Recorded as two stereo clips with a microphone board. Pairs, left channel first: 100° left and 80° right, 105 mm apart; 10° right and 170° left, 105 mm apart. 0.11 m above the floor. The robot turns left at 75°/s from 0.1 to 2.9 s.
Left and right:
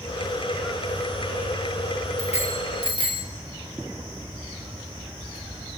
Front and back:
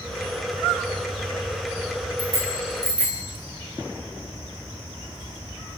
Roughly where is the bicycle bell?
Behind left.